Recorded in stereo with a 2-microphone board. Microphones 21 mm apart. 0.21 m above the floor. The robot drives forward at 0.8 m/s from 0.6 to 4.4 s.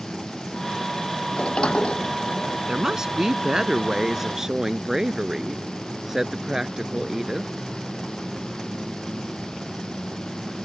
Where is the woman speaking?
30° right (ahead or behind); by 7.5 s 20° right (ahead or behind).